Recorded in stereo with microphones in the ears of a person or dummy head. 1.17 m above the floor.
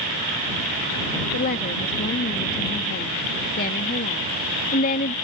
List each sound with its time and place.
1.3 s a woman speaking: 45° left (ahead or behind)